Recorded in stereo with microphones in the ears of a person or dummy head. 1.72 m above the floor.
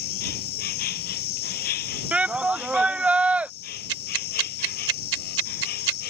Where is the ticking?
75° right (ahead or behind).